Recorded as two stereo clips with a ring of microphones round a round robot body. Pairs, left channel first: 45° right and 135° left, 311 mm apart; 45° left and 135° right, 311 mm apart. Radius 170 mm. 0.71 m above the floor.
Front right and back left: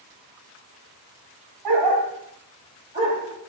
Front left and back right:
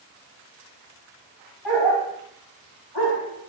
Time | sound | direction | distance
1.6 | a dog barking | 140° left | 1.0 m